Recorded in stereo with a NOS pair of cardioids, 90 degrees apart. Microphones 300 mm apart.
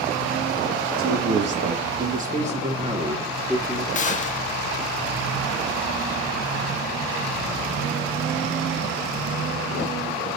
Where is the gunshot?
25° left, 1.7 m.